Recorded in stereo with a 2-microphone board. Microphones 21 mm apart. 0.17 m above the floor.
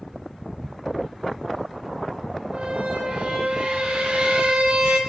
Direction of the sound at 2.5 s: 65° right (ahead or behind).